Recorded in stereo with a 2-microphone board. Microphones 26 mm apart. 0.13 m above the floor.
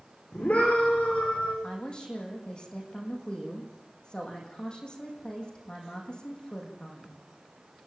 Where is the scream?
60° left (ahead or behind), 7.5 m.